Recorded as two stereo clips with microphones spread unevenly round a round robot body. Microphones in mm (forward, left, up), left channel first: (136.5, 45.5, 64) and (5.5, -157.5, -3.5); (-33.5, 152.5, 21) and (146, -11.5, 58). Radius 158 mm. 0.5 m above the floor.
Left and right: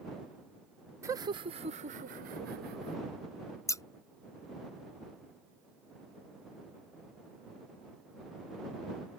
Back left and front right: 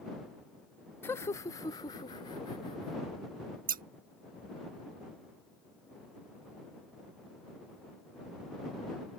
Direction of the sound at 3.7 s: 40° right.